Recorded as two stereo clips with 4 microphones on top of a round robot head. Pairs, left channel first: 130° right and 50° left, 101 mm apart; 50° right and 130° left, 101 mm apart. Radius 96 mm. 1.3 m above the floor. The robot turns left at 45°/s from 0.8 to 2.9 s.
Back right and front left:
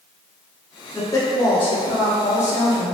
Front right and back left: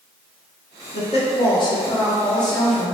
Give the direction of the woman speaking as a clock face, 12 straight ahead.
2 o'clock.